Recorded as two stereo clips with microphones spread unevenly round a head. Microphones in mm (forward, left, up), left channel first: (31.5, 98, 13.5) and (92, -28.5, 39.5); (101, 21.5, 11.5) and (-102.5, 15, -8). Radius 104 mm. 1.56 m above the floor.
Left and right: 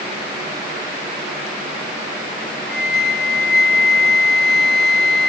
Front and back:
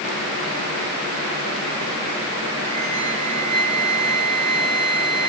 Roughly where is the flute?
Behind.